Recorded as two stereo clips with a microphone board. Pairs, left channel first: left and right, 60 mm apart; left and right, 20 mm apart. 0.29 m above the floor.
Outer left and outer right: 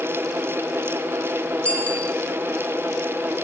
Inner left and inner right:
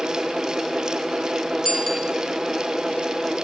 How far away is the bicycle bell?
About 3.5 m.